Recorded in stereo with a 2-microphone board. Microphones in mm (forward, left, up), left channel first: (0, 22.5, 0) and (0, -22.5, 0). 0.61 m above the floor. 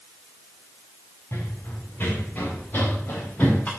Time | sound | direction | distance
1.3 | running footsteps | 50° left (ahead or behind) | 4.5 m